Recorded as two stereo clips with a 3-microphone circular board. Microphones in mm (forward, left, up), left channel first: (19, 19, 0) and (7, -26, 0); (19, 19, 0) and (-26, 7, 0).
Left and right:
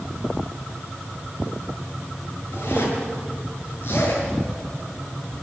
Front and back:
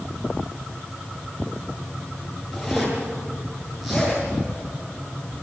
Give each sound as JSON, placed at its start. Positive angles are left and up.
{"t": 2.5, "sound": "a zipper", "azimuth_deg": 110, "distance_m": 8.0}